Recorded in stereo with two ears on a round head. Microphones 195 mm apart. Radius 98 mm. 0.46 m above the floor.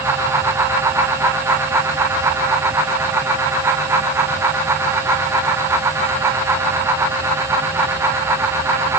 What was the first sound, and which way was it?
Only background noise.